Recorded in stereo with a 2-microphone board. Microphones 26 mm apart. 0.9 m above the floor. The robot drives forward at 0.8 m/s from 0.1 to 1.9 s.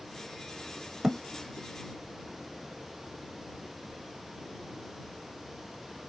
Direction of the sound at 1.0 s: 30° right (ahead or behind).